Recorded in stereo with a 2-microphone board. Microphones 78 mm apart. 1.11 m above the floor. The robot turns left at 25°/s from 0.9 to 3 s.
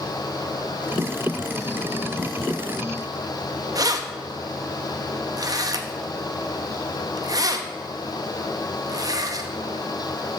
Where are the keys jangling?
50° right (ahead or behind), 0.7 m.